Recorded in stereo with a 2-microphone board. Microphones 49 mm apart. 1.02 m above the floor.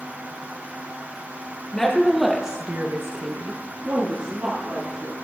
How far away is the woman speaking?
About 1.7 m.